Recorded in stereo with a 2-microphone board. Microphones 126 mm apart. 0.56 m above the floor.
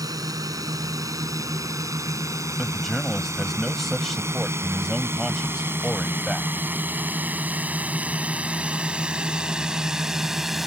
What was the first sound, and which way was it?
A drone, 30° right (ahead or behind).